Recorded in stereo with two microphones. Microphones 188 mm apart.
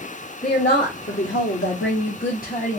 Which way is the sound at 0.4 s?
55° left (ahead or behind).